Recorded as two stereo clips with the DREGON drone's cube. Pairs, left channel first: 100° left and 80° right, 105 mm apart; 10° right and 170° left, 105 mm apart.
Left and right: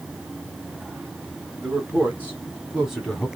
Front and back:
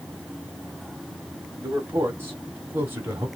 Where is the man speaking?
135° right, 1.8 m; by 3.3 s straight behind, 1.3 m.